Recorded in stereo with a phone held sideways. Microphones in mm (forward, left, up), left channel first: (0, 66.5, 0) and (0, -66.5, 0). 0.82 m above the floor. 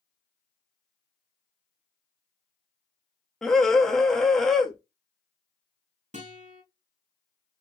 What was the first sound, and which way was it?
A scream, 5° left (ahead or behind).